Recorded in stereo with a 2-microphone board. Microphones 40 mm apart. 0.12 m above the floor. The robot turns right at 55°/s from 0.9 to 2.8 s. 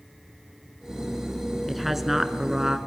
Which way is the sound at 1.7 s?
Centre (ahead or behind).